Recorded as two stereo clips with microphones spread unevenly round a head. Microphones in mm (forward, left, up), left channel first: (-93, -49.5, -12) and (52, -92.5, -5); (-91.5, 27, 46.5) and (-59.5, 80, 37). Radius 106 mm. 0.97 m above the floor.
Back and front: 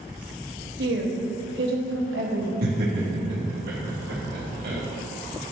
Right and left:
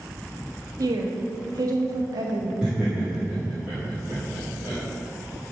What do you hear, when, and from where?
0.8 s a woman speaking: 25° left, 1.2 m
2.6 s laughter: 30° right, 2 m